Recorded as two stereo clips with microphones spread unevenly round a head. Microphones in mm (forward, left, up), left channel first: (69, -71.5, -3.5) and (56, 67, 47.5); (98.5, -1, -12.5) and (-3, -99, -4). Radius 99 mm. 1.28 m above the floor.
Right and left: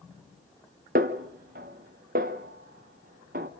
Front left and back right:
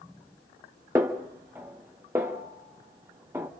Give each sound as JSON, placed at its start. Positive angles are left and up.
{"t": 0.9, "sound": "a snare drum", "azimuth_deg": 145, "distance_m": 1.0}